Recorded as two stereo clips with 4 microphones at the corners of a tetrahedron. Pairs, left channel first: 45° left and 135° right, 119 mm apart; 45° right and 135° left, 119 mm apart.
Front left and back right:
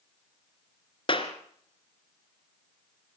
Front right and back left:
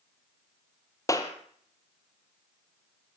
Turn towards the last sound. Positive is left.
turn(degrees=10)